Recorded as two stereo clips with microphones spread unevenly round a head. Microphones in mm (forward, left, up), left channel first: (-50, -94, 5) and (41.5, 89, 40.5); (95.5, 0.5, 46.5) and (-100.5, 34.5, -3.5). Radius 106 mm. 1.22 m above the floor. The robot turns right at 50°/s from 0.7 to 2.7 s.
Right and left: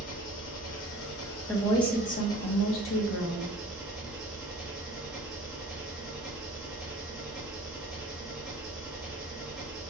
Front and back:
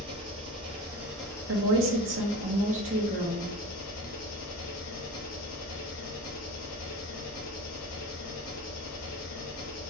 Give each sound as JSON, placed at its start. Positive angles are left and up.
{"t": 0.0, "sound": "an engine running", "azimuth_deg": -120, "distance_m": 1.4}
{"t": 1.5, "sound": "a woman speaking", "azimuth_deg": 165, "distance_m": 1.3}